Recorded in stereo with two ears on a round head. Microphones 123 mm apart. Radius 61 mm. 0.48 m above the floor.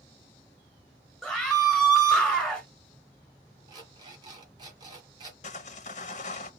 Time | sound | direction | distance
1.2 | a scream | 5° right (ahead or behind) | 1.0 m
3.7 | an alarm clock | 35° right (ahead or behind) | 2.5 m
5.4 | sawing | 65° left (ahead or behind) | 0.9 m